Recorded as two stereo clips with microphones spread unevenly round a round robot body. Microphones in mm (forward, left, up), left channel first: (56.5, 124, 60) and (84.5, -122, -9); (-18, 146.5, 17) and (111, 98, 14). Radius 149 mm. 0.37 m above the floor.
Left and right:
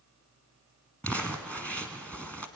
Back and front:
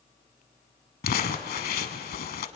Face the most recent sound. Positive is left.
turn(degrees=-175)